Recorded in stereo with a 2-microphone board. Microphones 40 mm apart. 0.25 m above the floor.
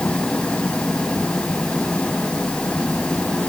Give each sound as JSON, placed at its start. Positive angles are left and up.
{"t": 0.0, "sound": "an engine running", "side_deg": 30}